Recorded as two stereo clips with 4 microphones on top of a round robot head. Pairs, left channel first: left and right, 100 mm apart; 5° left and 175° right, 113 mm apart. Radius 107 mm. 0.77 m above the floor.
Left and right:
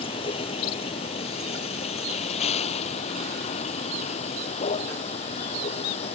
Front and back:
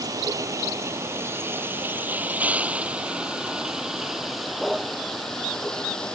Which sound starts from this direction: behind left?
A vehicle, at 0.0 s.